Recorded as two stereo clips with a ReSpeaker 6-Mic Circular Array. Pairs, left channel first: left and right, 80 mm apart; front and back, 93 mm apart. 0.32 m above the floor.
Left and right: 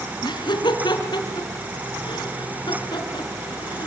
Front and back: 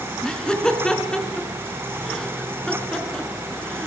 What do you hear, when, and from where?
0.2 s laughter: 80° left, 4.5 m